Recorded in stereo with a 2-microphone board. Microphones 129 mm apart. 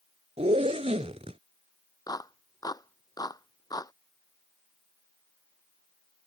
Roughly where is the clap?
Left.